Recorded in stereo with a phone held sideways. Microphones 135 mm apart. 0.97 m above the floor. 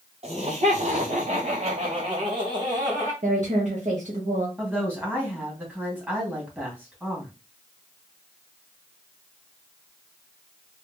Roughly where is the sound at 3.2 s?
Right.